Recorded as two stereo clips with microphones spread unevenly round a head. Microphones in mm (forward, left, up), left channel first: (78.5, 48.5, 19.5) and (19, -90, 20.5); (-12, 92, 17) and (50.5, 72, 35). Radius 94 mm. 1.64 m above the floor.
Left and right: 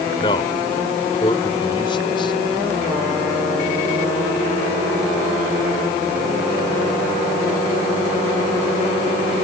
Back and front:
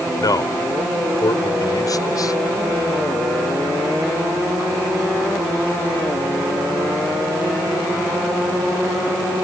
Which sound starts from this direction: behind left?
A man speaking, at 0.2 s.